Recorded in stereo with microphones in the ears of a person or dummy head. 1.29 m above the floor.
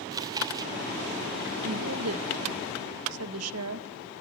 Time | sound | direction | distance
0.1 | chewing | 25° right (ahead or behind) | 2.5 m
1.6 | a woman speaking | 80° right | 1.8 m